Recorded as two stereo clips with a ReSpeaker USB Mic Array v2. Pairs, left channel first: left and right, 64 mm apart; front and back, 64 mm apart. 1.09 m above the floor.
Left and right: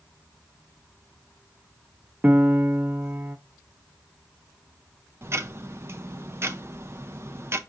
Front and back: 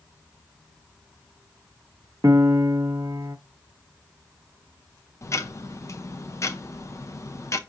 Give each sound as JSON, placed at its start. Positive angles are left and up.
{"t": 2.2, "sound": "a piano", "azimuth_deg": -150, "distance_m": 0.5}
{"t": 5.2, "sound": "ticking", "azimuth_deg": -40, "distance_m": 0.5}